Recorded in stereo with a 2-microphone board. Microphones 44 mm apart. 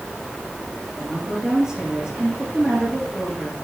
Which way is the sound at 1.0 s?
20° right (ahead or behind).